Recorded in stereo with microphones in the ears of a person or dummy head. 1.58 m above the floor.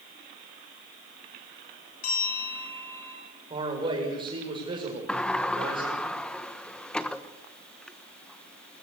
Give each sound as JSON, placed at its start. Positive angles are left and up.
{"t": 2.0, "sound": "a bell", "side_deg": 50, "distance_m": 9.0}
{"t": 3.5, "sound": "a man speaking", "side_deg": -25, "distance_m": 7.0}
{"t": 5.1, "sound": "a sliding door", "side_deg": 10, "distance_m": 1.2}